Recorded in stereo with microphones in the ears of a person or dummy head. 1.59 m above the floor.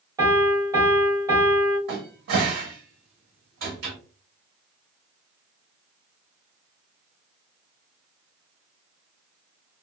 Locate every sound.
0.2 s a piano: 20° right (ahead or behind), 1.8 m
1.9 s a cupboard door: 60° right (ahead or behind), 1.1 m